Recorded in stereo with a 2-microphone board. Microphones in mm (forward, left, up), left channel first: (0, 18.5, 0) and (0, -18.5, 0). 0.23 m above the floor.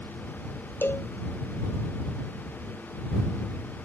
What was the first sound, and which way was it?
A cowbell, 80° left.